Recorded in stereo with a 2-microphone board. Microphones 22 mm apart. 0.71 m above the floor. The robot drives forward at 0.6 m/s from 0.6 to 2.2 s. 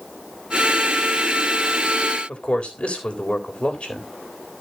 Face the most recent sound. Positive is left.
turn(degrees=65)  # may be behind; listen again after turning